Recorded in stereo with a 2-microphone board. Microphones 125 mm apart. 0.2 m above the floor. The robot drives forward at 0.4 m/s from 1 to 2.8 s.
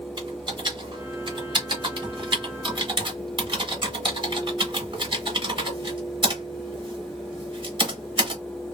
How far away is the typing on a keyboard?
About 1.8 m.